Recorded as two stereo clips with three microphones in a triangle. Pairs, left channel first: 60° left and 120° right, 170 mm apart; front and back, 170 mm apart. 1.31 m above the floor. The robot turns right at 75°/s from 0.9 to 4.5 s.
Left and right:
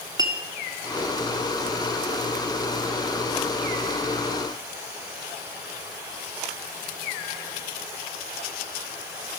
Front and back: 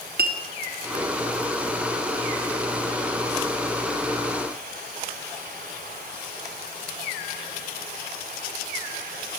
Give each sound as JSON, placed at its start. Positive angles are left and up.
{"t": 0.2, "sound": "a clink", "azimuth_deg": 175, "distance_m": 0.6}